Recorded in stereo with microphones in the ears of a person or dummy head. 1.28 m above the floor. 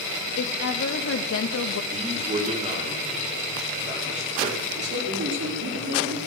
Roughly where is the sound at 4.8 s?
Right.